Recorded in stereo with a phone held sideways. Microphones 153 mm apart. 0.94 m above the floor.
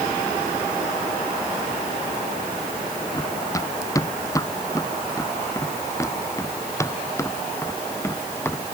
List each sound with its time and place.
3.1 s running footsteps: 20° left (ahead or behind); by 8.7 s 15° left (ahead or behind)